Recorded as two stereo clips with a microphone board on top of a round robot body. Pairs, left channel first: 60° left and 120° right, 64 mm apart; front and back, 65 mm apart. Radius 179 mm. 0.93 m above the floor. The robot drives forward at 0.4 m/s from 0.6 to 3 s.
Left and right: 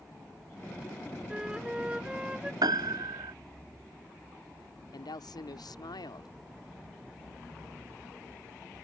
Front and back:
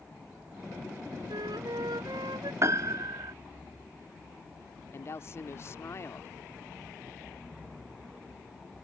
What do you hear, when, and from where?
1.3 s a flute: 165° left
2.6 s a piano: 135° right; by 3.3 s 145° right
4.9 s a woman speaking: 50° left